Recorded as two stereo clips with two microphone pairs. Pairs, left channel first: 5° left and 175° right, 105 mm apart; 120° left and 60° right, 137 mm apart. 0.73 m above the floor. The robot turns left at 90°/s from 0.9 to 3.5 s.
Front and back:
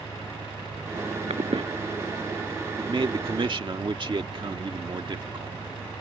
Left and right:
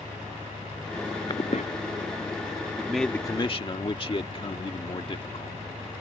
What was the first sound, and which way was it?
An engine running, 145° right.